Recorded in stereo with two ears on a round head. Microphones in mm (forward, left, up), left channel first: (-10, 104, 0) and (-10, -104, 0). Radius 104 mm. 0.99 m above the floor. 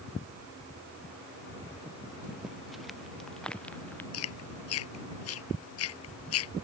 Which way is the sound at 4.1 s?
70° left (ahead or behind).